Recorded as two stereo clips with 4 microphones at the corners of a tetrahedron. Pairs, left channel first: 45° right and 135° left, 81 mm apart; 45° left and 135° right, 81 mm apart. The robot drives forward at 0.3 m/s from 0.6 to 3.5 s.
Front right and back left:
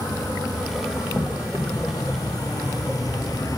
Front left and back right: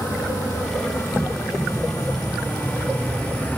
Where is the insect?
10° right, 1.6 m; by 3.6 s 20° right, 0.8 m.